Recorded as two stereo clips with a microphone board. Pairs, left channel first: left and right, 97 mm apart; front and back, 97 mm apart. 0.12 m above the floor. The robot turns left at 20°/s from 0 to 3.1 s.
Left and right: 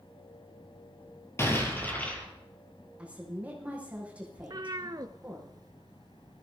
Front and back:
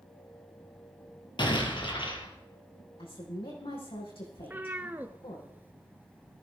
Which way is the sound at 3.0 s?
10° right.